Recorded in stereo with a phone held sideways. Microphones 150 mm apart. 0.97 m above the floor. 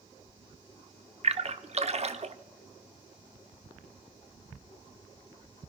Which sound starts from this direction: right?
A splash, at 1.2 s.